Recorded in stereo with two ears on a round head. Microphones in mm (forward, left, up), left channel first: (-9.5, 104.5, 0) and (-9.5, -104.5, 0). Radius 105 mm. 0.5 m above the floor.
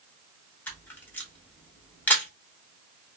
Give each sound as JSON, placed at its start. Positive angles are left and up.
{"t": 0.7, "sound": "a camera shutter", "side_deg": 10, "distance_m": 0.7}